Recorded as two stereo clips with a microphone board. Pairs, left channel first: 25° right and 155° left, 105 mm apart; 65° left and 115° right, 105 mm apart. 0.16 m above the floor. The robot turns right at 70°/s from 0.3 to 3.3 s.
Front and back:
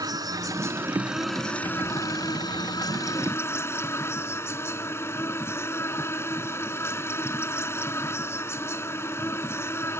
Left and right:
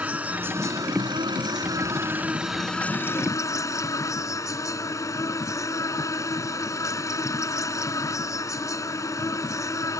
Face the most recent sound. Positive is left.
turn(degrees=30)